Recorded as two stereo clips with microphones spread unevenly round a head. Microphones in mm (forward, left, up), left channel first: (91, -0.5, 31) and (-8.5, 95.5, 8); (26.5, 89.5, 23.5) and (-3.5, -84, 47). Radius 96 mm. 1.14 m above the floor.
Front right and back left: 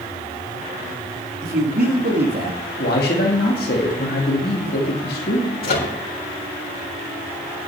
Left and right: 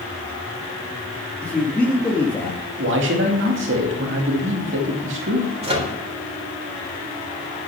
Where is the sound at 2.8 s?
80° right, 2.5 m.